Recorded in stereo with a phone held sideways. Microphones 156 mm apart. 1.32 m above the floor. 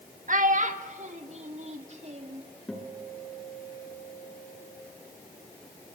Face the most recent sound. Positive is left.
turn(degrees=5)  # may be behind; listen again after turning